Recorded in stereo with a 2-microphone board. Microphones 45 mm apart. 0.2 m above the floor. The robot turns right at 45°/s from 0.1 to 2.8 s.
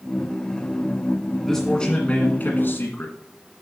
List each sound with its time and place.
1.4 s a man speaking: 5° left, 1.6 m; by 3.1 s 70° left, 1.6 m